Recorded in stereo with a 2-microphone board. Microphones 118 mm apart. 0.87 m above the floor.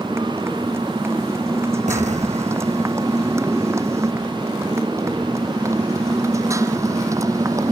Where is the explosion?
80° right.